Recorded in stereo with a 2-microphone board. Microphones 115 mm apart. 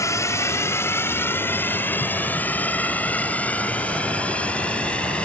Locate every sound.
0.0 s a drone: 25° left (ahead or behind); by 5.2 s 10° left (ahead or behind)